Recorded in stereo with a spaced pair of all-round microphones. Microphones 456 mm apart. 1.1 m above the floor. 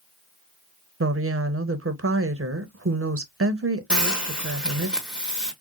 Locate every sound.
1.0 s a woman speaking: 30° right (ahead or behind), 0.5 m
3.9 s a hiss: centre (ahead or behind), 1.0 m